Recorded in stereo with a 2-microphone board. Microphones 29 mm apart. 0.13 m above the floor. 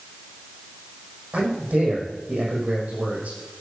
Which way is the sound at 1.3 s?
75° right (ahead or behind).